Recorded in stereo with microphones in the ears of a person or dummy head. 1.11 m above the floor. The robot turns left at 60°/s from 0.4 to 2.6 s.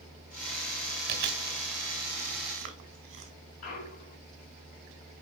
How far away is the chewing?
About 1.9 m.